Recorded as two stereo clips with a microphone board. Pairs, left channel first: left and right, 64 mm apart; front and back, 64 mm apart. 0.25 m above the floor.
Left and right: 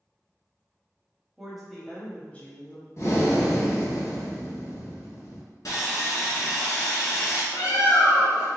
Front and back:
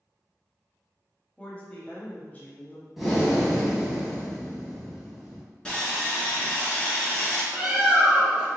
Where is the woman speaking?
20° right, 0.9 m; by 2.9 s 50° left, 1.2 m.